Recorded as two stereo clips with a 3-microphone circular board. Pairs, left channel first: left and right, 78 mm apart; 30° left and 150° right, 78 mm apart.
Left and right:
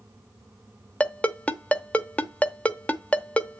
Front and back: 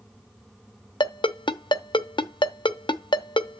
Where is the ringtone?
20° left, 0.7 m.